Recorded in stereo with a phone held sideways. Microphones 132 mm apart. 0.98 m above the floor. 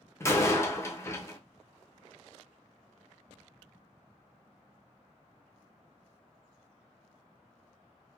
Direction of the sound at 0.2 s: 20° left (ahead or behind).